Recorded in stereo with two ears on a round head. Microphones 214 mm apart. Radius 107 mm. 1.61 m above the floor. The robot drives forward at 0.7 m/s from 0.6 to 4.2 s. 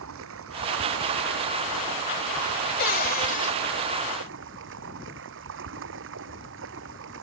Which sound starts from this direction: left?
A cupboard door, at 2.8 s.